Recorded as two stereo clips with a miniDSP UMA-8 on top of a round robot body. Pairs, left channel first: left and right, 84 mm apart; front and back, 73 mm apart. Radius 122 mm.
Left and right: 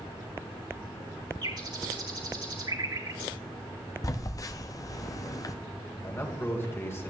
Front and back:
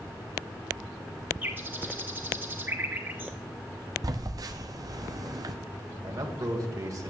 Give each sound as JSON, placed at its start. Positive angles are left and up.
{"t": 1.4, "sound": "a bird", "azimuth_deg": -120, "distance_m": 2.5}
{"t": 4.0, "sound": "a phone buzzing", "azimuth_deg": 140, "distance_m": 0.6}
{"t": 6.0, "sound": "a man speaking", "azimuth_deg": 150, "distance_m": 2.0}